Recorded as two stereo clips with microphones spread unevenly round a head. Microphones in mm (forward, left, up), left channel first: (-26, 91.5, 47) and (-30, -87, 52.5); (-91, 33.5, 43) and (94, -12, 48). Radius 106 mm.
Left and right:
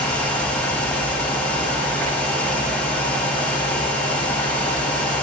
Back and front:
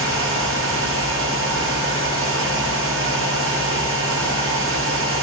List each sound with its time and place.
0.0 s a fan: 5° left, 1.8 m